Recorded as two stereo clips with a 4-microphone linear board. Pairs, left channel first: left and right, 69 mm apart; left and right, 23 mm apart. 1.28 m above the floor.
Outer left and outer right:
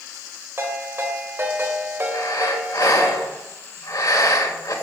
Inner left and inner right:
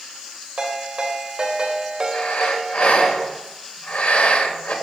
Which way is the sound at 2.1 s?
65° left (ahead or behind).